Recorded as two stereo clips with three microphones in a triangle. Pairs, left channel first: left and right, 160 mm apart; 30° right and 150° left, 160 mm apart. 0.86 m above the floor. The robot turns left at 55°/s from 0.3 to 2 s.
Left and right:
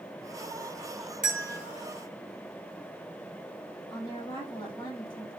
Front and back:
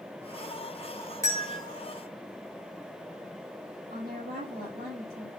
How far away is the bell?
About 1.5 m.